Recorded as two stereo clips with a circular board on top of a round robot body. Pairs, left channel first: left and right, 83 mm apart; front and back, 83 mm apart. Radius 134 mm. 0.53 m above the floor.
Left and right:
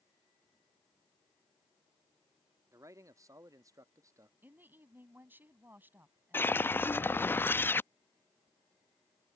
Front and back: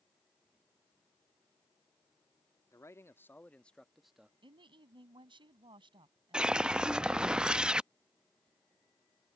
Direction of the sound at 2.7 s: 45° right.